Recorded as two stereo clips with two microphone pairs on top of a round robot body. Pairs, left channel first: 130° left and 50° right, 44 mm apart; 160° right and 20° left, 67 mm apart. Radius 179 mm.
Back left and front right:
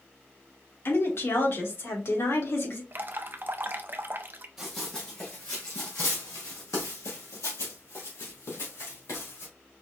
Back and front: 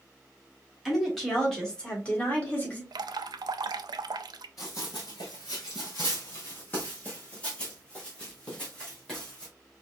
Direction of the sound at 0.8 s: 110° left.